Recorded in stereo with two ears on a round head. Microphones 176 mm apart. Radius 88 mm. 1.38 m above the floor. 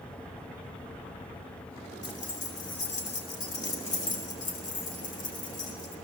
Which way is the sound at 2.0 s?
40° left (ahead or behind).